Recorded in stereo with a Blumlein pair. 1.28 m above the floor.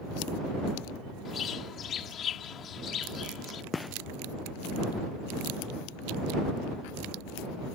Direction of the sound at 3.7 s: 10° left.